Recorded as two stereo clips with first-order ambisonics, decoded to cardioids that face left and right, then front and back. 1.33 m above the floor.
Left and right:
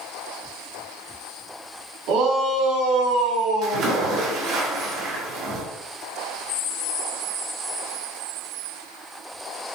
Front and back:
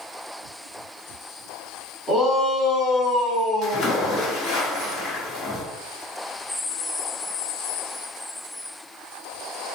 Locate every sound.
2.1 s a shout: 70° right, 2.5 m; by 4.4 s 100° right, 2 m
3.6 s a splash: 55° right, 1.5 m